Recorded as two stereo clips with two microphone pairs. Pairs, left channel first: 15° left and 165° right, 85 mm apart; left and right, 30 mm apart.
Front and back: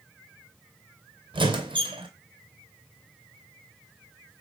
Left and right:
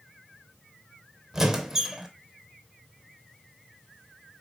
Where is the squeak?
165° right, 0.5 m.